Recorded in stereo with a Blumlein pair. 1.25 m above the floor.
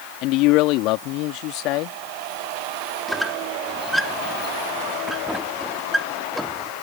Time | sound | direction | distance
0.2 | a man speaking | 40° left | ?
3.1 | a squeak | straight ahead | ?